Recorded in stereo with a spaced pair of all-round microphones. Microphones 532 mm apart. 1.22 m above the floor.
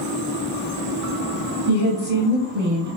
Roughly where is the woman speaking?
Right.